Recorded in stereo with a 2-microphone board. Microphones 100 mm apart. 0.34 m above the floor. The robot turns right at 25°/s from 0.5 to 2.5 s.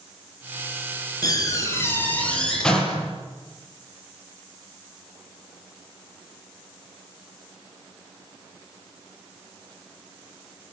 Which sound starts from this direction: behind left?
A door slam, at 1.2 s.